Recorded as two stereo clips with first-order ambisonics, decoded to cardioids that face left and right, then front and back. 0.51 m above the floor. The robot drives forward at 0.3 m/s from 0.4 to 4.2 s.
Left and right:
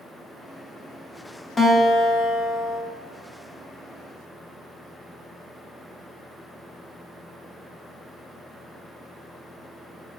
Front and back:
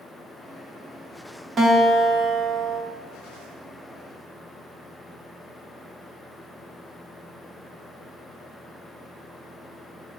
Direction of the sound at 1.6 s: 145° left.